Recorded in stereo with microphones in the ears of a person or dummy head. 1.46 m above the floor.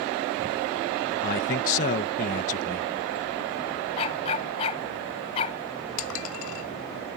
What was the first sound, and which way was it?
A man speaking, 40° left (ahead or behind).